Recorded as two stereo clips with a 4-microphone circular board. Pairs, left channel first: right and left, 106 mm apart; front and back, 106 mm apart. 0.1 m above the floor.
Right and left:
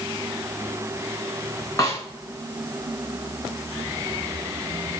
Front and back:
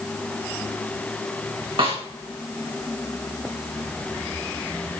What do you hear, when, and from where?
1.8 s a snare drum: 150° right, 5.5 m